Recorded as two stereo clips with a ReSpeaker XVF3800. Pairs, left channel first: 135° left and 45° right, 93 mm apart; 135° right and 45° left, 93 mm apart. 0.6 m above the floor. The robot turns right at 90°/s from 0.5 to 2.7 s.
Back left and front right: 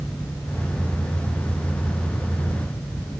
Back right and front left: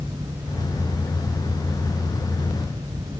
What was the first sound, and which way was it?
Only background noise.